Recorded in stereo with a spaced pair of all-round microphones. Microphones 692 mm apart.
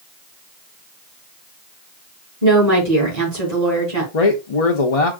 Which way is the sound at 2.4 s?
65° right (ahead or behind).